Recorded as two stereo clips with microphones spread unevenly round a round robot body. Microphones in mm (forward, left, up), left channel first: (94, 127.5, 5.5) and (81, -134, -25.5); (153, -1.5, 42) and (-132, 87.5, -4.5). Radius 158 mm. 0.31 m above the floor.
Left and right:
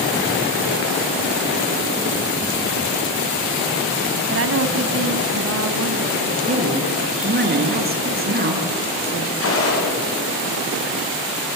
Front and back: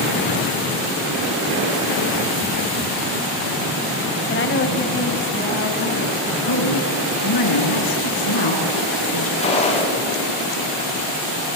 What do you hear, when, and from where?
4.3 s a woman speaking: 75° right, 1.9 m
6.4 s a woman speaking: 40° right, 6 m
9.4 s a gunshot: 55° left, 9.5 m